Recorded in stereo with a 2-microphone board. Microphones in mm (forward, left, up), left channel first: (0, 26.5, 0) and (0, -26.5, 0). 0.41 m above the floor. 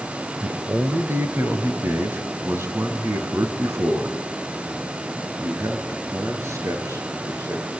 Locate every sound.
0.4 s a man speaking: 40° right (ahead or behind), 1.4 m; by 7.6 s 60° right (ahead or behind), 7.5 m